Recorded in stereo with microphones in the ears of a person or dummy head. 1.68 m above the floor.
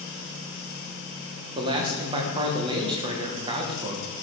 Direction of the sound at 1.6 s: 25° right (ahead or behind).